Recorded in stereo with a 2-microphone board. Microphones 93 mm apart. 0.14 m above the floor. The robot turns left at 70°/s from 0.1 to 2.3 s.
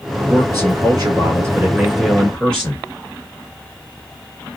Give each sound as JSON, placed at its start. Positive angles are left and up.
{"t": 0.3, "sound": "a man speaking", "azimuth_deg": -50, "distance_m": 1.5}